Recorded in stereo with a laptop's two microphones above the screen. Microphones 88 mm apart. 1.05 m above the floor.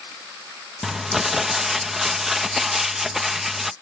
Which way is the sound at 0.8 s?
5° right (ahead or behind).